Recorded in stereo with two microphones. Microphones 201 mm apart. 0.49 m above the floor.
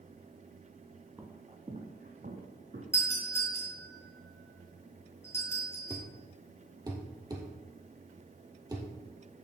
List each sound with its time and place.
1.2 s footsteps: 15° right (ahead or behind), 0.9 m; by 2.8 s 50° right (ahead or behind), 2 m
2.9 s a doorbell: 15° left (ahead or behind), 4.5 m
5.9 s a thud: 20° right (ahead or behind), 1.9 m